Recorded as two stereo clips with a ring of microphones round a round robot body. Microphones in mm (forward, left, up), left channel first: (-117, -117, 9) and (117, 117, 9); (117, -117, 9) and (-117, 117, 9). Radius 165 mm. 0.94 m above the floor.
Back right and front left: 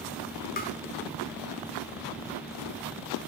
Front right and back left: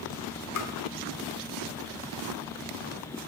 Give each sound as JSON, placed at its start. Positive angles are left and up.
{"t": 0.6, "sound": "tapping", "azimuth_deg": -75, "distance_m": 0.9}